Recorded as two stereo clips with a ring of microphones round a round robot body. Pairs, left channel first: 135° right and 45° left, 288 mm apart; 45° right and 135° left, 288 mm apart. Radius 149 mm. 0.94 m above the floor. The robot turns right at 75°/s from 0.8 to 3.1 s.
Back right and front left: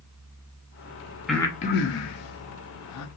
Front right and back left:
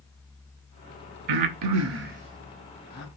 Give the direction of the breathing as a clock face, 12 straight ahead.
8 o'clock.